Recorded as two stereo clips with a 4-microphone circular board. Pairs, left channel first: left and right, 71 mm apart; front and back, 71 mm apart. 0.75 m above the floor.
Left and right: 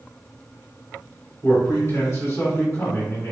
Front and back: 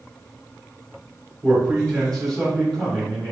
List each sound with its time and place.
1.4 s a man speaking: 85° left, 1.5 m